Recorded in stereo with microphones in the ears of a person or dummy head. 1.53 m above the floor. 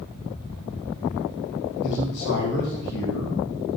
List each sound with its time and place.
1.8 s a man speaking: 65° left (ahead or behind), 1.7 m